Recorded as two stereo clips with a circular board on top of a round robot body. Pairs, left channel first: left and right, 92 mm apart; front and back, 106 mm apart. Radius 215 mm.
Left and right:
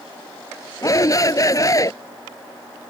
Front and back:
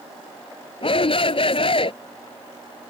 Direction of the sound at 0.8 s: 35° left.